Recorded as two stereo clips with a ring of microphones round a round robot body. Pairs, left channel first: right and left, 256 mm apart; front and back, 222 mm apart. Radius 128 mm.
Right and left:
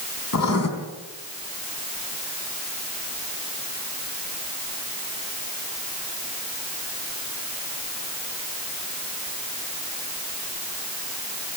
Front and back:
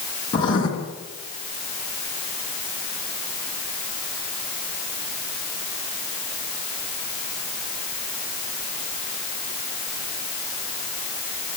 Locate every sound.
0.3 s writing: 70° right, 3.5 m